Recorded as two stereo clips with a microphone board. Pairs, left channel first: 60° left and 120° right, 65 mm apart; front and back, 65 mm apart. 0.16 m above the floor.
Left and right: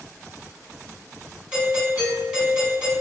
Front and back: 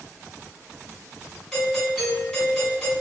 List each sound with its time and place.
1.5 s a doorbell: 75° right, 1.5 m